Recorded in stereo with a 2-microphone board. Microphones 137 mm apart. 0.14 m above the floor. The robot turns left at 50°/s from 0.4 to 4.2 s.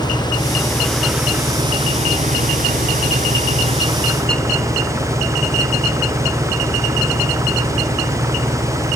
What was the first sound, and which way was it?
An engine running, 30° left.